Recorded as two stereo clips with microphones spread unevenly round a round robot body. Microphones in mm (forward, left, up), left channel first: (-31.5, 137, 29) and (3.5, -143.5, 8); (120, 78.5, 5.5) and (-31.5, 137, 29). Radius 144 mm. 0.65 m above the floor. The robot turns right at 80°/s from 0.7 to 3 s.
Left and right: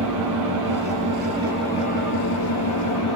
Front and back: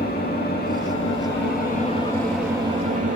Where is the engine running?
65° right, 7 m; by 3.2 s 120° left, 7 m.